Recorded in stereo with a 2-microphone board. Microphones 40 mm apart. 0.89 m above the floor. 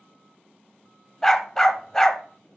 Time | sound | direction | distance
1.2 | a dog barking | 10° left (ahead or behind) | 0.9 m